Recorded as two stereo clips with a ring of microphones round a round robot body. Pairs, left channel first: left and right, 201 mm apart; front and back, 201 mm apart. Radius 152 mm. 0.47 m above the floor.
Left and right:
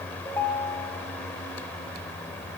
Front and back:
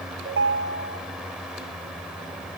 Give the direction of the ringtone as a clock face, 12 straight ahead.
6 o'clock.